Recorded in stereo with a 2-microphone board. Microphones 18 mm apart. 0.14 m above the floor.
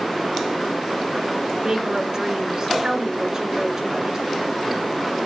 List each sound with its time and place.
1.6 s a woman speaking: 40° right (ahead or behind), 1.4 m